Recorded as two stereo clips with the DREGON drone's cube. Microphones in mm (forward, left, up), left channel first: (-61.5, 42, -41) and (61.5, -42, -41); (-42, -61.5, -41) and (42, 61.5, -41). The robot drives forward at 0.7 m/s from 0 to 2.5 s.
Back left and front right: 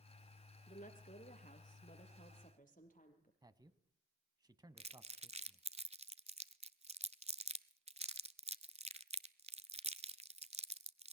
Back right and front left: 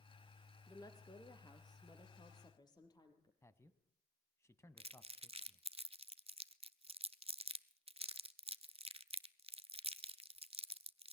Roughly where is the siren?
No siren in this recording.